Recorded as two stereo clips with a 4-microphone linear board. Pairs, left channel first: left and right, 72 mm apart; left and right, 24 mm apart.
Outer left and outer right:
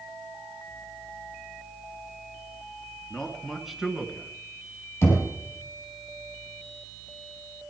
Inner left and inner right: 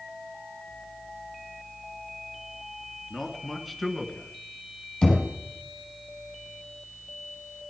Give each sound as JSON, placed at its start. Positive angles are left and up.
{"t": 3.1, "sound": "a man speaking", "side_deg": 10, "distance_m": 1.9}
{"t": 5.0, "sound": "knocking", "side_deg": 35, "distance_m": 5.0}